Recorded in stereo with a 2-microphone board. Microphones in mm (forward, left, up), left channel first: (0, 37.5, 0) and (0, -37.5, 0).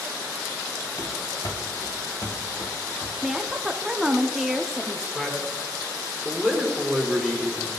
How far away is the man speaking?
About 1.8 m.